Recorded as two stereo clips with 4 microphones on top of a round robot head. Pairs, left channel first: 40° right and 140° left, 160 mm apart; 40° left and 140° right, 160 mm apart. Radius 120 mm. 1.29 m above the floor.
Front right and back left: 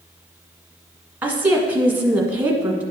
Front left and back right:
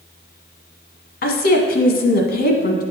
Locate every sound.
1.2 s a woman speaking: 65° left, 1.2 m